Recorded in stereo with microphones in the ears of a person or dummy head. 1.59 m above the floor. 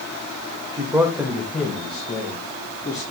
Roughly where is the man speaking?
Centre.